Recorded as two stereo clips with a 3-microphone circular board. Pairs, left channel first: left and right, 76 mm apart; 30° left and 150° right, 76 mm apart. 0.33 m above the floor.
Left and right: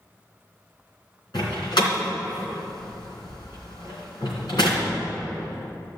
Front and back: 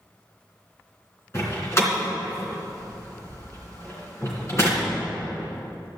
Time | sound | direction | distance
1.3 | a door slam | 80° left | 3 m